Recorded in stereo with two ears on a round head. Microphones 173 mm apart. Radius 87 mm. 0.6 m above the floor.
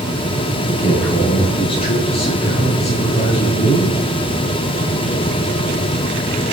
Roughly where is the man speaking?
Left.